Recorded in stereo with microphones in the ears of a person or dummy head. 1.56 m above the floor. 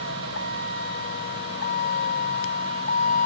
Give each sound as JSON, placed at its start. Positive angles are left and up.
{"t": 0.0, "sound": "a vehicle", "side_deg": 75}